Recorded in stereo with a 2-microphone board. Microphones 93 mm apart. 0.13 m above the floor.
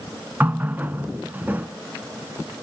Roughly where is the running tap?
Centre.